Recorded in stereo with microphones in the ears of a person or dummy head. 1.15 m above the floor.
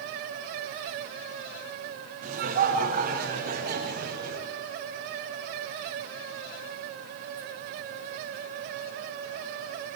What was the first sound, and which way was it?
Laughter, 45° right (ahead or behind).